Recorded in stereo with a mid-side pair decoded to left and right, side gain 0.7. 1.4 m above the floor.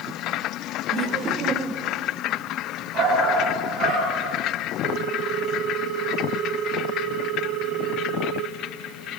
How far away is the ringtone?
About 2 m.